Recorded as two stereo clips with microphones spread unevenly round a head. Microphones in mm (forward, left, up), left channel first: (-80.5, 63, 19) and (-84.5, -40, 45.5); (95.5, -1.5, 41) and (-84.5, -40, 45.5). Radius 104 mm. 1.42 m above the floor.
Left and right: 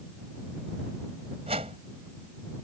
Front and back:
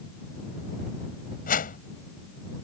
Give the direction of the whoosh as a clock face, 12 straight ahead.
1 o'clock.